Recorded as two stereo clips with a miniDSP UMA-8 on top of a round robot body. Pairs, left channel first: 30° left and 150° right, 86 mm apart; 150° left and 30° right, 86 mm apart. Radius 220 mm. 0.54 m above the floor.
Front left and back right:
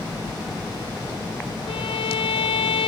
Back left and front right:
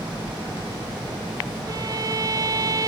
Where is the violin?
20° left, 0.7 m.